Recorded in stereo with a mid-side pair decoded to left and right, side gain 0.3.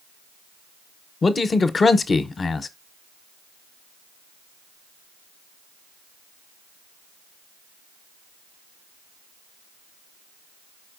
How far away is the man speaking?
About 0.6 m.